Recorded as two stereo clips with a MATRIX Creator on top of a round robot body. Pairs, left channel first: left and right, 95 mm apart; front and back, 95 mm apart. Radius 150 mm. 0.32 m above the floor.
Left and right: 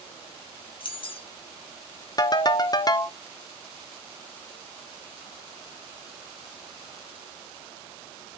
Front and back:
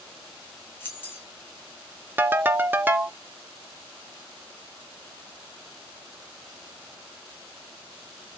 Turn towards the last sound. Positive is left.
turn(degrees=115)